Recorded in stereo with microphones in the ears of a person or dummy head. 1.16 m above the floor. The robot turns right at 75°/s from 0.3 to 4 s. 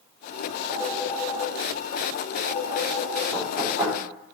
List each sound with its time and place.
0.7 s a phone ringing: 30° right (ahead or behind), 2 m; by 3.2 s 20° left (ahead or behind), 2 m
3.3 s knocking: 30° left (ahead or behind), 3.5 m; by 4.0 s 20° right (ahead or behind), 3.5 m